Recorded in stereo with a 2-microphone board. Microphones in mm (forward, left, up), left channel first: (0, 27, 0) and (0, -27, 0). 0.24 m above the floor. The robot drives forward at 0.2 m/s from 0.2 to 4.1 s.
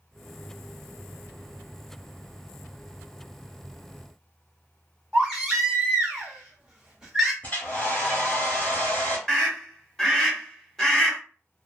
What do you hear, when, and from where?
5.1 s a baby crying: 10° right (ahead or behind), 1.3 m
7.4 s a hair dryer: 25° left (ahead or behind), 1.1 m
9.3 s a scream: 5° left (ahead or behind), 1.1 m